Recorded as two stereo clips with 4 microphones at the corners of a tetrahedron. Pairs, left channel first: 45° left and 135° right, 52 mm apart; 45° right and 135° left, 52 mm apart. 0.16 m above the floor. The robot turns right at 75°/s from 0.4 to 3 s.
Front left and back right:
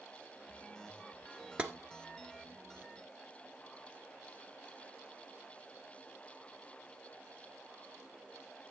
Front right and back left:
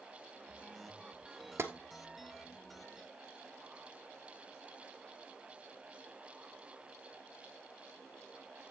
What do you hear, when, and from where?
1.6 s tapping: 160° left, 1.2 m; by 1.7 s 170° left, 1.2 m